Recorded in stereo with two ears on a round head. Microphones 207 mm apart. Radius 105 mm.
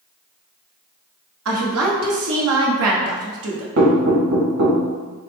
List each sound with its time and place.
1.4 s a woman speaking: 75° right (ahead or behind), 1.1 m
3.8 s knocking: 75° right (ahead or behind), 1.9 m